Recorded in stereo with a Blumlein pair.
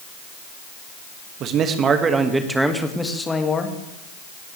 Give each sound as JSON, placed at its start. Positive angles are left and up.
{"t": 1.4, "sound": "a man speaking", "azimuth_deg": -35, "distance_m": 1.8}